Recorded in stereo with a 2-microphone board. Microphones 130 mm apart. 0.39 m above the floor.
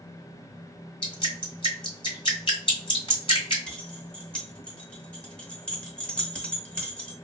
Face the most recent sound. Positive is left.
turn(degrees=10)  # may be behind; listen again after turning